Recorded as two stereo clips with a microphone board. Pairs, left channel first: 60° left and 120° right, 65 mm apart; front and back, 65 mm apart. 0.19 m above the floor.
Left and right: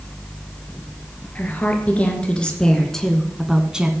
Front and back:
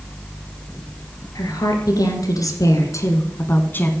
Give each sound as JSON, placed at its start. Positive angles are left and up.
{"t": 1.4, "sound": "a woman speaking", "azimuth_deg": -5, "distance_m": 3.0}